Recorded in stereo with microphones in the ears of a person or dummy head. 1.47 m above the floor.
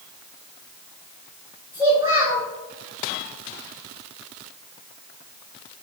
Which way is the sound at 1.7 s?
15° right (ahead or behind).